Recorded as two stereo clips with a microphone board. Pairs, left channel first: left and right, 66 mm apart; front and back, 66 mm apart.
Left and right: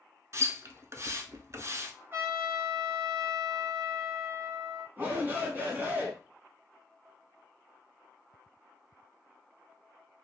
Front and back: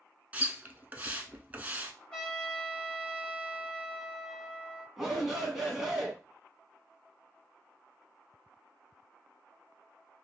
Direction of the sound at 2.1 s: 70° right.